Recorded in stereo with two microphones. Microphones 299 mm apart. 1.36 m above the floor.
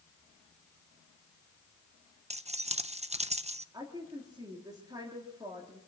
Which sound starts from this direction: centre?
A woman speaking, at 3.7 s.